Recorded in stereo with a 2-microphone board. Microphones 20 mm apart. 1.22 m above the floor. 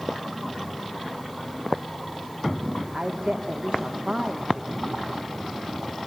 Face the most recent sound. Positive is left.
turn(degrees=-60)  # may be behind; listen again after turning